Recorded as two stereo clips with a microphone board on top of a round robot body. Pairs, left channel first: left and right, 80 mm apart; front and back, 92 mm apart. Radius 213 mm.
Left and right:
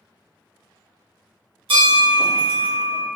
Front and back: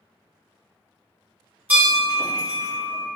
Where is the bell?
105° right, 1.6 m.